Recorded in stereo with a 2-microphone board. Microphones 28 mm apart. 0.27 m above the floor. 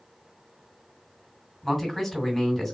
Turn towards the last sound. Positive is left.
turn(degrees=0)  # may be behind; listen again after turning